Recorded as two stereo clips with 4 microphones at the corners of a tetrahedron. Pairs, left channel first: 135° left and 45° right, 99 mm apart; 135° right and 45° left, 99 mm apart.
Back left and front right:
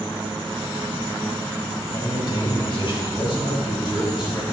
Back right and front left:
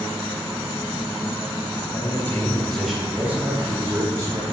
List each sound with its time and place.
1.9 s a man speaking: 175° left, 2 m; by 4.5 s 95° left, 4 m